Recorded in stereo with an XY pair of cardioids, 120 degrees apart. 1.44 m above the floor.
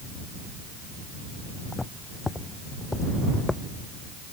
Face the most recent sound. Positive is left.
turn(degrees=15)